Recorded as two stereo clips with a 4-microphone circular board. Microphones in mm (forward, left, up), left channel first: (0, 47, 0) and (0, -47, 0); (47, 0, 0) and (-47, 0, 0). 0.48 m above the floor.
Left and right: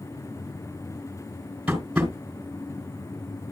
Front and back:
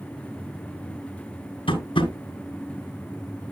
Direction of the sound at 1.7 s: 10° right.